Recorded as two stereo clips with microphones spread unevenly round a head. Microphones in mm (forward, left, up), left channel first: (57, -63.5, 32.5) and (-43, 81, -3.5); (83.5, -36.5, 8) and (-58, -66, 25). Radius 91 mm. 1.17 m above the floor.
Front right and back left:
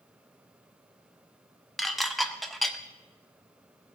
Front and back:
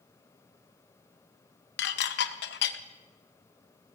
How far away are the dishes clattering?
About 0.6 m.